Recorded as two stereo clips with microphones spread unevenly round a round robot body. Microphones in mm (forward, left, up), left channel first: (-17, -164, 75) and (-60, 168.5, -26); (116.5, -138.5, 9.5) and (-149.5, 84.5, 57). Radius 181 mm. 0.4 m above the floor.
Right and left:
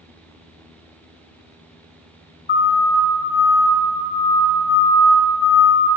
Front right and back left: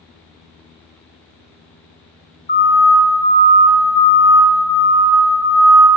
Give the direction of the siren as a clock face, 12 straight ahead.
12 o'clock.